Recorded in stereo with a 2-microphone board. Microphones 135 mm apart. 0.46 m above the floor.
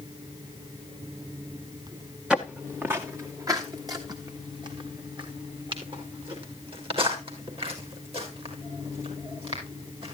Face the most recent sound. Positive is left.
turn(degrees=-45)  # may be behind; listen again after turning